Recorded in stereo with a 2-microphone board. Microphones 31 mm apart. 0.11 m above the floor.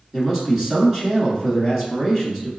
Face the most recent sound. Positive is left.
turn(degrees=-15)  # may be behind; listen again after turning